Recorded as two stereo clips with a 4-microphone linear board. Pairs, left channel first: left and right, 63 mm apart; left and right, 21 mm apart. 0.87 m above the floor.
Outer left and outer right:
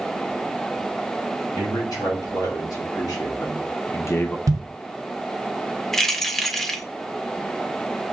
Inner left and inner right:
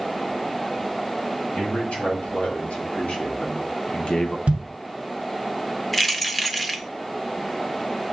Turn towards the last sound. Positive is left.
turn(degrees=5)  # may be behind; listen again after turning